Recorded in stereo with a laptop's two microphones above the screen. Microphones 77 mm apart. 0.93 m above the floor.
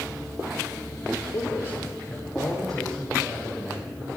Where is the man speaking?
50° left (ahead or behind), 2.5 m; by 4.1 s 25° right (ahead or behind), 4 m.